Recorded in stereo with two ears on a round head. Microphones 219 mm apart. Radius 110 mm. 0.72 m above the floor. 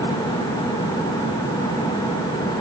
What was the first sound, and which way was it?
Only background noise.